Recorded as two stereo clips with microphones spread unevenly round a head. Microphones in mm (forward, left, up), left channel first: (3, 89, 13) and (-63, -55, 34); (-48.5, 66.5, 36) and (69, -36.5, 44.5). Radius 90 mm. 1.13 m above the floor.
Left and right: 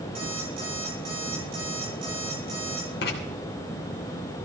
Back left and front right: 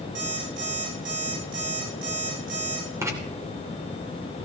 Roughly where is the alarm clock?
Ahead right.